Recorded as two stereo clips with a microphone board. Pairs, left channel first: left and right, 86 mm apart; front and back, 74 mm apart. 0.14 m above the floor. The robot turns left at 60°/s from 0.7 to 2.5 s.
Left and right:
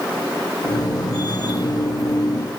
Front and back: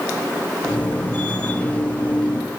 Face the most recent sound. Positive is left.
No sound to turn to.